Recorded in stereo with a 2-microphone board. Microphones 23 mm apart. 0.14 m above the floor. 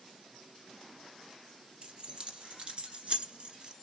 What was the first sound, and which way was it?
Keys jangling, 45° right (ahead or behind).